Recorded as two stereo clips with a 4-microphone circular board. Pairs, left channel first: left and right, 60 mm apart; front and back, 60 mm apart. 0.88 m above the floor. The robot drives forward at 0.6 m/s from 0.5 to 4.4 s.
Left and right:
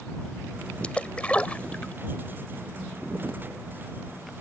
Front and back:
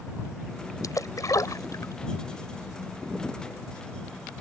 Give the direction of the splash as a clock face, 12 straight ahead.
11 o'clock.